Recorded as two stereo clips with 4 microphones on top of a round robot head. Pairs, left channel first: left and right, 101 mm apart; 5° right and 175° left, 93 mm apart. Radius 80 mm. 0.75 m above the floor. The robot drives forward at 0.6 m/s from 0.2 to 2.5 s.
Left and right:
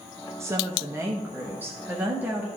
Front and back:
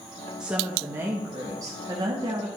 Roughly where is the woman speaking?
Behind right.